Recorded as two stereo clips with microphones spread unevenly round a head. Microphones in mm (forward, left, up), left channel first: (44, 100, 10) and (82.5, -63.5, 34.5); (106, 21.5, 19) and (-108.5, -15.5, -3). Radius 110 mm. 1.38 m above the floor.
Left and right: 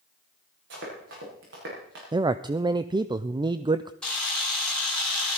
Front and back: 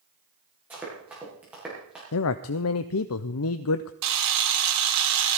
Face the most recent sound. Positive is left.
turn(degrees=-170)